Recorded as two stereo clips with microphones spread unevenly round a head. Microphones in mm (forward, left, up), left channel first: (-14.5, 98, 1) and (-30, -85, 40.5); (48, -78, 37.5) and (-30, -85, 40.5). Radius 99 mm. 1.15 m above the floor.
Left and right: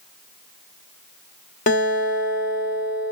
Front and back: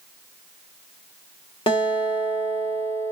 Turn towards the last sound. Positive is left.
turn(degrees=30)